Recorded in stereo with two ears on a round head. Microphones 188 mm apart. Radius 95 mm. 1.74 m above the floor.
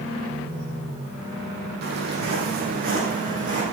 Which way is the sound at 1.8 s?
50° right (ahead or behind).